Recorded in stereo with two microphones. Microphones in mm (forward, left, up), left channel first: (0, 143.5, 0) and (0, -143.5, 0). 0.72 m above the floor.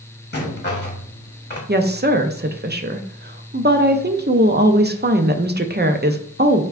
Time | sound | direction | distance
0.3 | a rattle | 35° left (ahead or behind) | 1.1 m
1.7 | a woman speaking | 35° right (ahead or behind) | 0.5 m